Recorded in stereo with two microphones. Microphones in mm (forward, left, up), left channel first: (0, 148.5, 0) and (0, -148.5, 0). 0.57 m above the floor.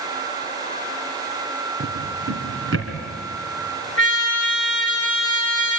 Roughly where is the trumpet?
Left.